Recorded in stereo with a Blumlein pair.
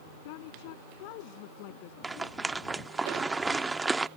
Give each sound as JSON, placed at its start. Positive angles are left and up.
{"t": 0.2, "sound": "a woman speaking", "azimuth_deg": 45}
{"t": 2.0, "sound": "a rattle", "azimuth_deg": -10}